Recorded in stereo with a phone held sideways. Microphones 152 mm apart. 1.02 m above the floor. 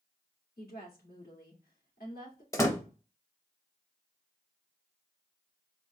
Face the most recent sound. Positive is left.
turn(degrees=20)  # may be behind; listen again after turning